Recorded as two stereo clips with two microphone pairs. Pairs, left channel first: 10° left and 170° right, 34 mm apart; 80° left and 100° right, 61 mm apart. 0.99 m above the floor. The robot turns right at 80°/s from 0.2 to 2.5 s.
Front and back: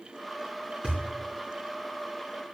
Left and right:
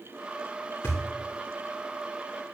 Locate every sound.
0.8 s a thud: 130° left, 3.5 m; by 1.0 s 140° left, 3.5 m